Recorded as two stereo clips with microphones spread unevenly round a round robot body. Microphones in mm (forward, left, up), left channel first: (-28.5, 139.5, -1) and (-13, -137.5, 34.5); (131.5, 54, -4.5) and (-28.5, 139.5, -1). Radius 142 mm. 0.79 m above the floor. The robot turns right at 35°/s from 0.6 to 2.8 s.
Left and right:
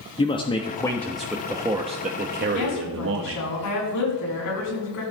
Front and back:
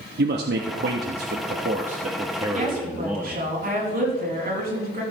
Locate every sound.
0.2 s a man speaking: 155° left, 1.2 m; by 3.4 s 125° right, 1.2 m
2.5 s a woman speaking: 110° left, 7 m; by 5.0 s 115° left, 7 m